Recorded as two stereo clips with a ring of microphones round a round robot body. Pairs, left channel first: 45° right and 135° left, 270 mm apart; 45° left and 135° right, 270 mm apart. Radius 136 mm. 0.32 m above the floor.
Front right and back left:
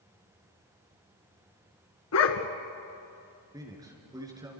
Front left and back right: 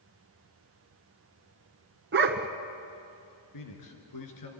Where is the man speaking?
60° left, 4.5 m.